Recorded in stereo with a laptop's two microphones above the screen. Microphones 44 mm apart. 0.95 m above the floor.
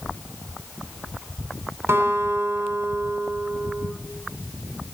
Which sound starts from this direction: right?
A guitar, at 1.9 s.